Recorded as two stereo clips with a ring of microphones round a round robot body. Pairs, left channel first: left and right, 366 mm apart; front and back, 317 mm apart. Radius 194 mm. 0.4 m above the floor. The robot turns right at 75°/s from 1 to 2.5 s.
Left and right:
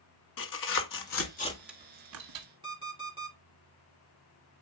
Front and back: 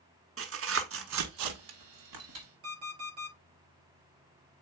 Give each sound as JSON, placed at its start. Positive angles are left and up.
{"t": 0.4, "sound": "tearing paper", "azimuth_deg": 130, "distance_m": 1.4}
{"t": 2.6, "sound": "an alarm clock", "azimuth_deg": -170, "distance_m": 6.0}